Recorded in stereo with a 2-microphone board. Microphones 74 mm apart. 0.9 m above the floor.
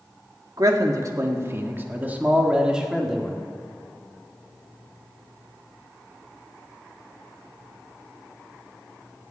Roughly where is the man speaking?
Right.